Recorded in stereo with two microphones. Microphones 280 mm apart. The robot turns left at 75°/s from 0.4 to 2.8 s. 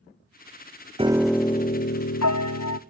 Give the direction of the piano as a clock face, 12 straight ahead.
5 o'clock.